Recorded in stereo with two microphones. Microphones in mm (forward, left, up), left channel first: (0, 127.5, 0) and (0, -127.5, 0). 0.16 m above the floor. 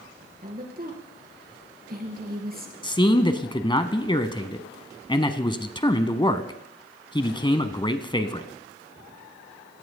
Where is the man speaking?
20° left (ahead or behind), 1.2 m.